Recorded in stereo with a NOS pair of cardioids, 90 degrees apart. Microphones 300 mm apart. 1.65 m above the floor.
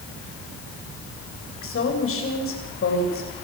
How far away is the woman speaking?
About 8 m.